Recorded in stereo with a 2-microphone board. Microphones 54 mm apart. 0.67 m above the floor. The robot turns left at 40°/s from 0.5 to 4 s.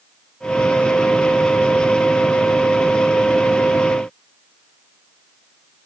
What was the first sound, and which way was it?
Only background noise.